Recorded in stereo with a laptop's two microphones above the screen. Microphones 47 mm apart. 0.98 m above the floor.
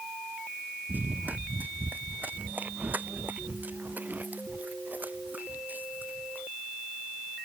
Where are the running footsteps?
35° right (ahead or behind).